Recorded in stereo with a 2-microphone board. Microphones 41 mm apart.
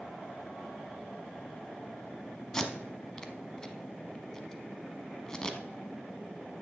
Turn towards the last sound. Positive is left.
turn(degrees=15)  # may be behind; listen again after turning